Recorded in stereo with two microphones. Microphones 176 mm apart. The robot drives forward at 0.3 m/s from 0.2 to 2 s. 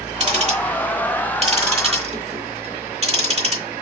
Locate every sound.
0.2 s ticking: 40° right (ahead or behind), 0.9 m